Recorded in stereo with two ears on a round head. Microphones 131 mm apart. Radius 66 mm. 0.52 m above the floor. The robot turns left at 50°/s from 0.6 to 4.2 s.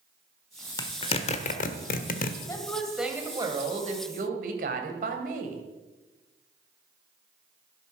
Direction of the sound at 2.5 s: 25° left.